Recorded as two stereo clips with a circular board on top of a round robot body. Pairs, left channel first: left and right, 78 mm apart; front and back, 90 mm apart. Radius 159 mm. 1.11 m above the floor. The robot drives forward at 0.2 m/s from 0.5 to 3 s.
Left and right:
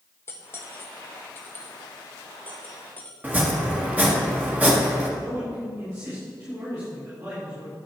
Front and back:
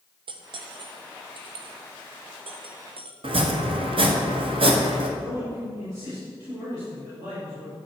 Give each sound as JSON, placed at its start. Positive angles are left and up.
{"t": 0.3, "sound": "cutlery clinking", "azimuth_deg": 150, "distance_m": 0.8}
{"t": 3.2, "sound": "chopping", "azimuth_deg": -160, "distance_m": 1.5}
{"t": 5.2, "sound": "a man speaking", "azimuth_deg": -130, "distance_m": 5.0}